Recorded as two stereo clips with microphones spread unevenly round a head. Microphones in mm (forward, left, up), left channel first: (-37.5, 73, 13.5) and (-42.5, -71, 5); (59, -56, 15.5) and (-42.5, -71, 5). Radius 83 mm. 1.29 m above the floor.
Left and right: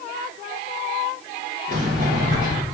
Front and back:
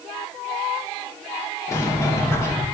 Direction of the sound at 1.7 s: 50° right.